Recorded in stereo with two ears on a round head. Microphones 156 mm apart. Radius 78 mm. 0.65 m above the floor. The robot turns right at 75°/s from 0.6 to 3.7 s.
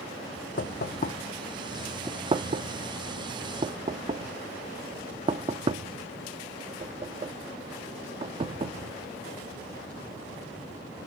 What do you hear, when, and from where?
0.6 s knocking: 55° left (ahead or behind), 0.6 m; by 8.9 s 30° right (ahead or behind), 0.6 m